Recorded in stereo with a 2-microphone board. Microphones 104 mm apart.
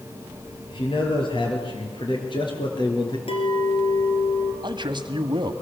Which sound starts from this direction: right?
A man speaking, at 4.6 s.